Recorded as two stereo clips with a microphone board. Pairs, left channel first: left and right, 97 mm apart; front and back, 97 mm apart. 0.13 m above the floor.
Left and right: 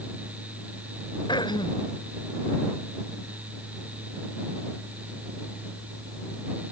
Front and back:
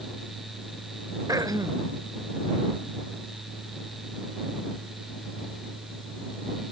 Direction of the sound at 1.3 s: 125° left.